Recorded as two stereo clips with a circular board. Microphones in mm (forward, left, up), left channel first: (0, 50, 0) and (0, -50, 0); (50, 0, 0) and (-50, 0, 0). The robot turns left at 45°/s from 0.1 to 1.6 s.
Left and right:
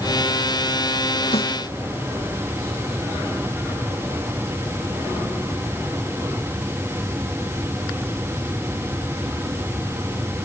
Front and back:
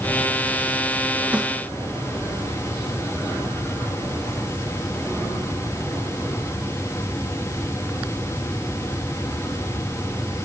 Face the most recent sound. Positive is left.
turn(degrees=90)